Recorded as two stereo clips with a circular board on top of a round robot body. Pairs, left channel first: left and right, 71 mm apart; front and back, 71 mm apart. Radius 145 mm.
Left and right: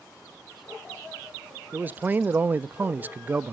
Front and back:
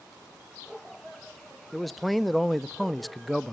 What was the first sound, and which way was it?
A man speaking, 90° right.